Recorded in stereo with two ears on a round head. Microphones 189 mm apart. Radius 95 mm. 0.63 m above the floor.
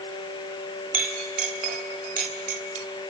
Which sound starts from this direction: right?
A clink, at 0.9 s.